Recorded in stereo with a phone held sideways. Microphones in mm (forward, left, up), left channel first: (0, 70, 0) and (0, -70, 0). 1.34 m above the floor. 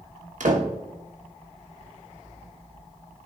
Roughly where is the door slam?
Right.